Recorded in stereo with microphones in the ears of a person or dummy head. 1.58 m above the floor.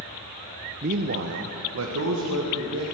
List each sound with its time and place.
0.8 s a man speaking: 35° right (ahead or behind), 0.6 m; by 2.9 s 80° right, 2.5 m